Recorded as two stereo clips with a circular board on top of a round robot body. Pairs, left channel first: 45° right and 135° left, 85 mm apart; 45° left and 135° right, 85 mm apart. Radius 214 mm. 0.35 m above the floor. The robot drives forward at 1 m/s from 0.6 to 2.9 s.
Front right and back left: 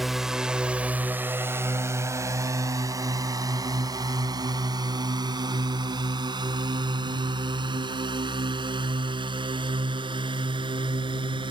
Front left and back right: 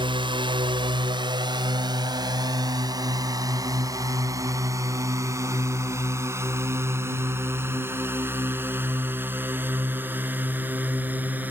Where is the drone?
140° right; by 11.5 s 155° left.